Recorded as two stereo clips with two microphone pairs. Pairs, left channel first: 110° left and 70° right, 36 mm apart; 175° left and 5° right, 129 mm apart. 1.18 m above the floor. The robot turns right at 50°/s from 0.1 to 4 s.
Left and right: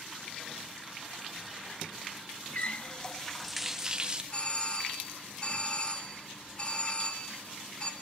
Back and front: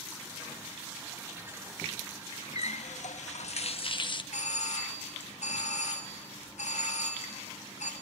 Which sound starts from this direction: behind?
A doorbell, at 4.3 s.